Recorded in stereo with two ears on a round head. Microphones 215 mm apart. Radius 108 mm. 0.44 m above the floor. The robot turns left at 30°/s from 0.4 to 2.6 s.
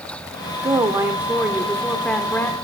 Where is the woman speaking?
15° right (ahead or behind), 0.9 m; by 2.5 s 10° left (ahead or behind), 0.9 m.